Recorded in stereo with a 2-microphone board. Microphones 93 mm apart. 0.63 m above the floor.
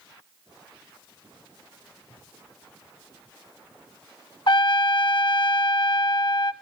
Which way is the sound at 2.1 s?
80° left.